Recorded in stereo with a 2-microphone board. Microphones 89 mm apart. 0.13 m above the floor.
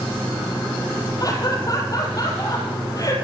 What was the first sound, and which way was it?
Laughter, 40° left (ahead or behind).